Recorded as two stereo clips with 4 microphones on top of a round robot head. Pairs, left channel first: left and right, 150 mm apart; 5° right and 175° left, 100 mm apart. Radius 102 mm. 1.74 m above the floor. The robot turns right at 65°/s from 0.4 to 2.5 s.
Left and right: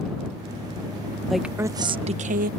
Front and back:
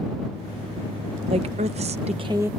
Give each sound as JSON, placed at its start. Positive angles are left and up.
{"t": 1.3, "sound": "a woman speaking", "azimuth_deg": 180}